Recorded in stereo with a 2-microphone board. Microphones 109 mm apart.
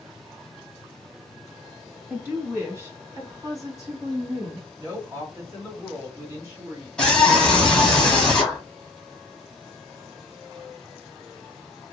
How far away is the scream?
About 1.1 m.